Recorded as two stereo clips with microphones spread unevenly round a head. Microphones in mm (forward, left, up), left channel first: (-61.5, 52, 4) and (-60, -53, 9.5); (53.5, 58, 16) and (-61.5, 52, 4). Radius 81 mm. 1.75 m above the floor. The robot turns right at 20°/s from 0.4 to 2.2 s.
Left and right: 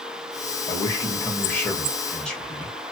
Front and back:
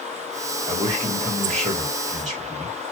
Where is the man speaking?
145° left, 1.7 m; by 2.8 s 175° left, 1.7 m.